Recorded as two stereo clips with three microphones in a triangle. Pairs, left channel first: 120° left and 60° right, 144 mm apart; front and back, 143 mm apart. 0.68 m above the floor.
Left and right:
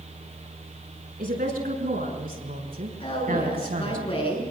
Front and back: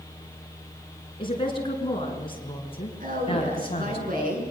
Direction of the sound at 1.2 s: 55° right.